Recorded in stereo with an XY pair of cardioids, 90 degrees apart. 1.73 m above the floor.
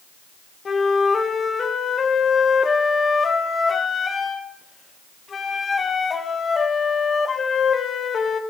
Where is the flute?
45° left, 0.7 m.